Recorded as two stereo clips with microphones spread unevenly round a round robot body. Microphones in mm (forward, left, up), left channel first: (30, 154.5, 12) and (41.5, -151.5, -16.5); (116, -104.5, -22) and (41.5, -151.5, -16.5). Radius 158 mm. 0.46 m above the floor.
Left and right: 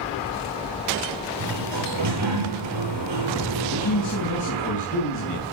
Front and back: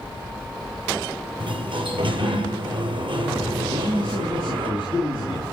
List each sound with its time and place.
1.4 s a sliding door: 130° right, 7 m
3.7 s a man speaking: 135° left, 4 m